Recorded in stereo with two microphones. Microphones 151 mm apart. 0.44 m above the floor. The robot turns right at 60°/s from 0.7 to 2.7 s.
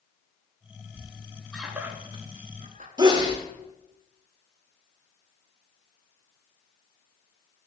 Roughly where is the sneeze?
Right.